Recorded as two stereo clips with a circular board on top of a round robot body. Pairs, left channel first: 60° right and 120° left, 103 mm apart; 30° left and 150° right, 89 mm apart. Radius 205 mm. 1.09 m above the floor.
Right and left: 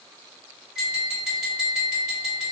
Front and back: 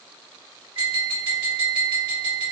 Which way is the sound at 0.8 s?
160° right.